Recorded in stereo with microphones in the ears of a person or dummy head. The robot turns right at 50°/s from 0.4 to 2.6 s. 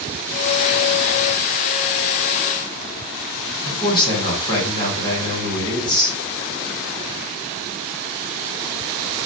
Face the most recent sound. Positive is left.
turn(degrees=20)  # may be behind; listen again after turning